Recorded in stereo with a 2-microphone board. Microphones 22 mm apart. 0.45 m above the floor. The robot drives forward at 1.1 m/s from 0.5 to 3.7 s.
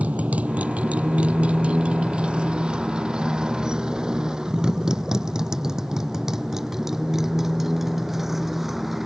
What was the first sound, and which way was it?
A motorcycle, 75° right (ahead or behind).